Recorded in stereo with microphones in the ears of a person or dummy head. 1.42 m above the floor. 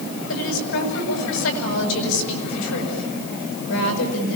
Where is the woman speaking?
85° left, 7 m.